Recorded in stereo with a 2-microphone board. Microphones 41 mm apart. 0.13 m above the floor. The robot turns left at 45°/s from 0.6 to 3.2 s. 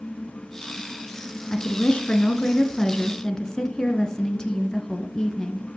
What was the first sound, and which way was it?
A woman speaking, 20° left (ahead or behind).